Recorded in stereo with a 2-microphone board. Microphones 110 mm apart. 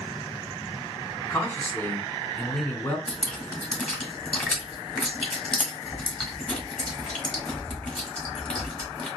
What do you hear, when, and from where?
1.3 s a man speaking: 20° left (ahead or behind), 1.3 m
3.1 s dripping: 10° left (ahead or behind), 1.6 m